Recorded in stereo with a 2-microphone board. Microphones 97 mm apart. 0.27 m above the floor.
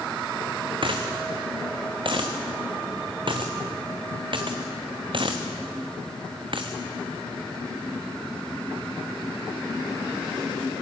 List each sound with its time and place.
0.8 s a dropped coin: 60° right (ahead or behind), 2 m